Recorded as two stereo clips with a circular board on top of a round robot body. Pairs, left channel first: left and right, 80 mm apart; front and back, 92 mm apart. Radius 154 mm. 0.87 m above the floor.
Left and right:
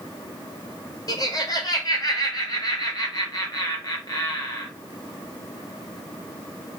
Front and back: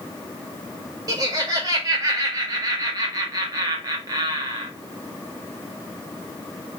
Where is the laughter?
130° left, 1.8 m.